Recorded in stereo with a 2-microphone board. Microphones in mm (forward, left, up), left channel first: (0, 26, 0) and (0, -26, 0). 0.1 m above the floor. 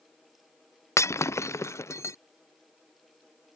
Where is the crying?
No crying in this recording.